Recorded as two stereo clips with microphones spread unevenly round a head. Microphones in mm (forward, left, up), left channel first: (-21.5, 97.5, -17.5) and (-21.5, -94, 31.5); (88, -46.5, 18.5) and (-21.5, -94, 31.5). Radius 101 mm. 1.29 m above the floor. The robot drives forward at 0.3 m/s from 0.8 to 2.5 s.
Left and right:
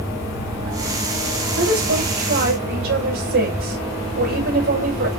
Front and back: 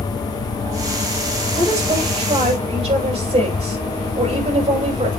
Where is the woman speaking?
110° right, 6.5 m; by 5.1 s 115° right, 7 m.